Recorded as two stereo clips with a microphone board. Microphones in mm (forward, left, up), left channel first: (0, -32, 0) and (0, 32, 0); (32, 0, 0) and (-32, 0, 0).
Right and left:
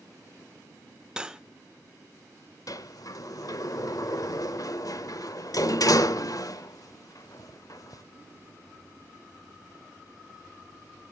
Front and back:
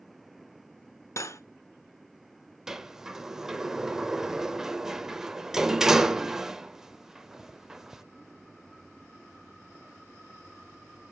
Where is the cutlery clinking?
15° left, 0.7 m.